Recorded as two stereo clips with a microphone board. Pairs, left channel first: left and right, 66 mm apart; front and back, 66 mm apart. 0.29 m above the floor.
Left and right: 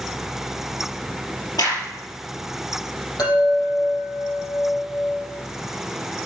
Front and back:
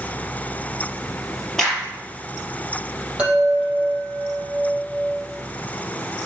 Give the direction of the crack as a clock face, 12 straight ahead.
9 o'clock.